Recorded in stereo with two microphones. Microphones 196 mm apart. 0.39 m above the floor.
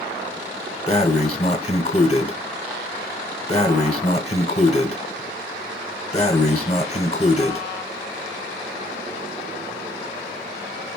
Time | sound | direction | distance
0.9 | breathing | 30° left (ahead or behind) | 0.8 m